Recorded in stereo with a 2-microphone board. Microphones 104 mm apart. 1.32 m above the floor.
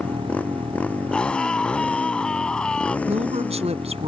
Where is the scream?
10° left (ahead or behind).